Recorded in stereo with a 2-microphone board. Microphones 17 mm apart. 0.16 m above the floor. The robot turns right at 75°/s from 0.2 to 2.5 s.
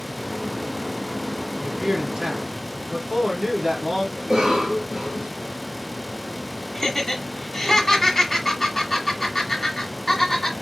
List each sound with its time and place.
1.6 s a man speaking: 125° right, 2.5 m; by 4.1 s 55° right, 2.5 m
4.2 s a cough: 55° right (ahead or behind), 3 m
6.8 s laughter: 20° left (ahead or behind), 1.6 m